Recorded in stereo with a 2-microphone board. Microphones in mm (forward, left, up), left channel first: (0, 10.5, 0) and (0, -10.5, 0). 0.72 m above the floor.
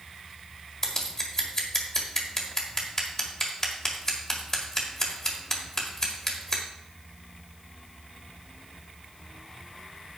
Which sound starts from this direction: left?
Scissors, at 0.8 s.